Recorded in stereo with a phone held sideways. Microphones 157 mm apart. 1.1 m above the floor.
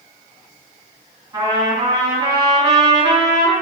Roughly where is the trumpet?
Centre.